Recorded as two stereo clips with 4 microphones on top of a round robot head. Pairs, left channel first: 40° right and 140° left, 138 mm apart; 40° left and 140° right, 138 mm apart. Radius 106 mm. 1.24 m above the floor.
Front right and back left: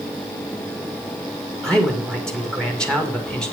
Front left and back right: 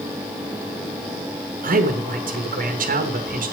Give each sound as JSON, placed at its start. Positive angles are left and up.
{"t": 1.6, "sound": "a man speaking", "azimuth_deg": -125, "distance_m": 2.5}